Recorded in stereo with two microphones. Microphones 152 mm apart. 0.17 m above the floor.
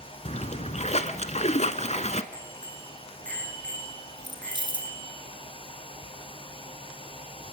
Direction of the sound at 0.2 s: 45° left (ahead or behind).